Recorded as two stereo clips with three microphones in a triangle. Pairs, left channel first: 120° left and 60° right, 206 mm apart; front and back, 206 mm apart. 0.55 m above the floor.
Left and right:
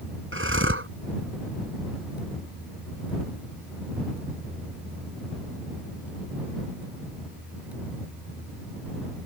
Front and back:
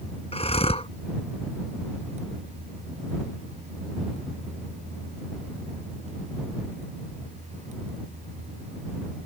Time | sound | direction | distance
0.3 | breathing | 60° right | ?